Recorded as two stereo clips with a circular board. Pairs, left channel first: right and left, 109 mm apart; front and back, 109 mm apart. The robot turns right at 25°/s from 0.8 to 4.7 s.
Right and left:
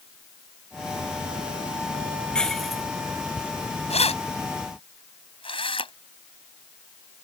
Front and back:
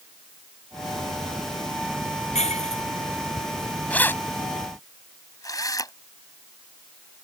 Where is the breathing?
No breathing in this recording.